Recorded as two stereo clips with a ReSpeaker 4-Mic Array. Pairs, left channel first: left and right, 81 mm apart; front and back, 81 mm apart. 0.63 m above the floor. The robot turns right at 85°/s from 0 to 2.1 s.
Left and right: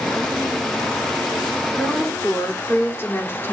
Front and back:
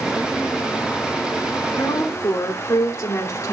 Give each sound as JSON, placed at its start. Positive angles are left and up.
{"t": 1.7, "sound": "a woman speaking", "azimuth_deg": 10, "distance_m": 2.0}